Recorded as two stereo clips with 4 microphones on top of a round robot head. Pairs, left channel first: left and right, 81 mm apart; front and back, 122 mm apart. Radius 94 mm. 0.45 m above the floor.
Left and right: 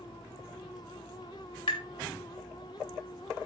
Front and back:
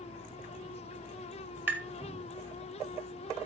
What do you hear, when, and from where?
1.7 s tapping: 105° left, 2.5 m